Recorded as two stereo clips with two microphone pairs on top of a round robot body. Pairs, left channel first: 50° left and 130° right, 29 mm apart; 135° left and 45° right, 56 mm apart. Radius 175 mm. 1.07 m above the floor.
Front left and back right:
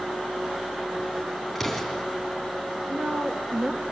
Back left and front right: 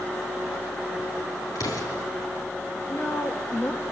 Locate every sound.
1.6 s an explosion: 145° left, 3.5 m
2.9 s a woman speaking: 175° right, 1.8 m